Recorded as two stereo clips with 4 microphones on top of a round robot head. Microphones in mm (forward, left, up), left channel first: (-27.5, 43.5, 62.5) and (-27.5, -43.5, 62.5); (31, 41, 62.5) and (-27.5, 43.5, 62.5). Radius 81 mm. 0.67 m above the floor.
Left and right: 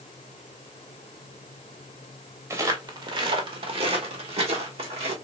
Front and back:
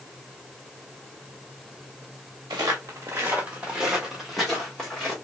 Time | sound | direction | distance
2.5 | footsteps | 145° right | 1.0 m